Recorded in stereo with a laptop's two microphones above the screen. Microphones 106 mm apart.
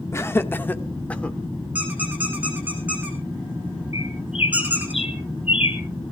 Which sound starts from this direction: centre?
A squeak, at 1.8 s.